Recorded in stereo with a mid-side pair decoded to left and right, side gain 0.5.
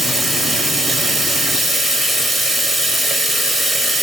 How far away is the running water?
About 1.5 m.